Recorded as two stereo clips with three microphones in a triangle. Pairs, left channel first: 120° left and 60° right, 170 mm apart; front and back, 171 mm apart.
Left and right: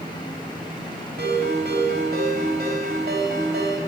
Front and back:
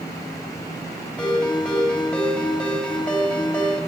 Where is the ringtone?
85° right, 2.5 m.